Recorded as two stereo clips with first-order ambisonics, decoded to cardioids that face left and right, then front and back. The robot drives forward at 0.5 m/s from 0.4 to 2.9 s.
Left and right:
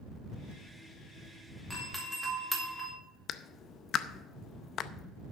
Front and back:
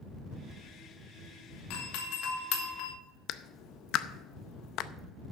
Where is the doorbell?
Straight ahead, 2.5 m.